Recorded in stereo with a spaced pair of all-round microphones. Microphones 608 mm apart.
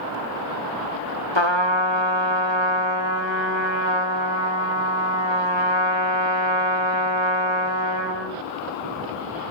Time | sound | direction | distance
1.4 | a trumpet | 45° left (ahead or behind) | 1.7 m